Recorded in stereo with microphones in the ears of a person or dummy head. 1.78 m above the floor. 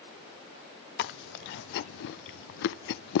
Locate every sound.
1.0 s chewing: 65° left (ahead or behind), 0.6 m